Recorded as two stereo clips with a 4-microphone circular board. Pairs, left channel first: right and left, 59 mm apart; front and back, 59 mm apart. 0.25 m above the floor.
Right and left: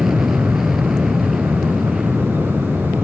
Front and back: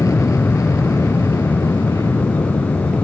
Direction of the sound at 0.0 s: 5° left.